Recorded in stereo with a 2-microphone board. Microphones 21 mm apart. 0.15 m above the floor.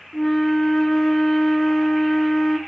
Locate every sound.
0.1 s a flute: 25° left (ahead or behind), 0.6 m